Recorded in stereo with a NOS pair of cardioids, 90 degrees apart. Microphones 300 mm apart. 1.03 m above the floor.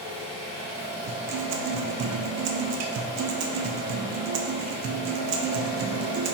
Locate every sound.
0.0 s an engine running: 20° right, 1.6 m
1.1 s a guitar: 65° right, 0.6 m